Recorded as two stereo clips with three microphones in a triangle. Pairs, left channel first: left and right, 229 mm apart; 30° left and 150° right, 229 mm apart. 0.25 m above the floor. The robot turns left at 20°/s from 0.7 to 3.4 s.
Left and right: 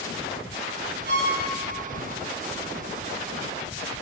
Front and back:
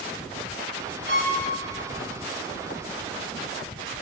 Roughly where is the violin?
Behind right.